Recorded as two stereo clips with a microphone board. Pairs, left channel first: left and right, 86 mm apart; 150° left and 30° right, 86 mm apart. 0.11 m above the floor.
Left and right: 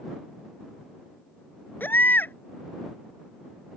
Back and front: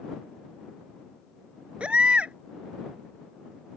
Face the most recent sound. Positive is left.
turn(degrees=40)